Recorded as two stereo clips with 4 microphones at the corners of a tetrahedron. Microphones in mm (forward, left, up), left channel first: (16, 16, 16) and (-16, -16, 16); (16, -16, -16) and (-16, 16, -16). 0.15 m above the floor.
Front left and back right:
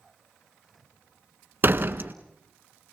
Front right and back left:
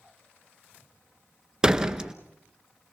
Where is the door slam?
155° right, 1.2 m.